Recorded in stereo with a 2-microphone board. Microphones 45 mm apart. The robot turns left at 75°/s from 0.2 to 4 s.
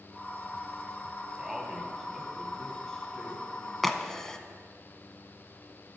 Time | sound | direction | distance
1.4 | a man speaking | 15° right (ahead or behind) | 1.2 m
3.8 | a crack | centre (ahead or behind) | 0.6 m